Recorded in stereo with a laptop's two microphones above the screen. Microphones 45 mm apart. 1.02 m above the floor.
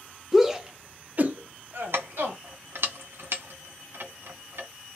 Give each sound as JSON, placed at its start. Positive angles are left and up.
{"t": 0.3, "sound": "a shout", "side_deg": -5, "distance_m": 0.9}
{"t": 1.9, "sound": "keys jangling", "side_deg": -70, "distance_m": 0.6}